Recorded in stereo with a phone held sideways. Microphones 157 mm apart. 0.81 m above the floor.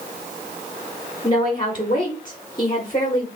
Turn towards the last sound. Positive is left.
turn(degrees=30)  # may be behind; listen again after turning